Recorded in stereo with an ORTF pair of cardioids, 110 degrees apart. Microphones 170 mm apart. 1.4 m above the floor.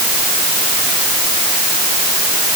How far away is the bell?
I don't hear a bell.